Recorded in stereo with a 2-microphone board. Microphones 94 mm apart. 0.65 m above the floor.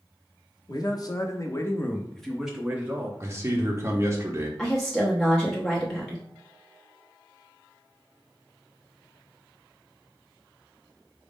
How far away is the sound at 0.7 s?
About 0.9 m.